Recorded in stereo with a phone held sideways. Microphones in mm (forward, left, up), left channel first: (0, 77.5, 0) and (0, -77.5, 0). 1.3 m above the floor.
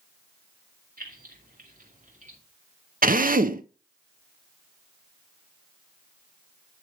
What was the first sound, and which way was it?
Keys jangling, 70° right (ahead or behind).